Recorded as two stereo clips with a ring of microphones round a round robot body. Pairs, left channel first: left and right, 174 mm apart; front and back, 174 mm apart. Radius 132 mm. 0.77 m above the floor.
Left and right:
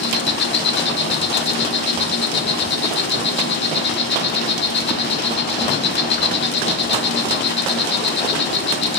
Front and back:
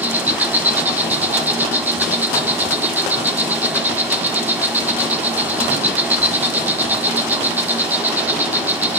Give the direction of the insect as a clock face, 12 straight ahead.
9 o'clock.